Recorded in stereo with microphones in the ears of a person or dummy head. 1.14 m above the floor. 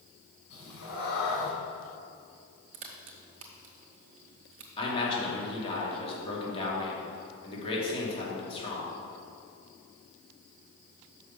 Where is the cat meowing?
75° left (ahead or behind), 3 m.